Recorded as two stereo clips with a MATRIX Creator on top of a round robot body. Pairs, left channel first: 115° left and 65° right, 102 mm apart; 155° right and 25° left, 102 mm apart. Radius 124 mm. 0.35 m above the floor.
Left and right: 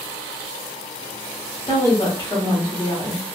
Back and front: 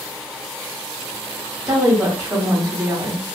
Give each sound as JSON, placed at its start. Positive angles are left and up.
{"t": 1.7, "sound": "a woman speaking", "azimuth_deg": 90, "distance_m": 1.9}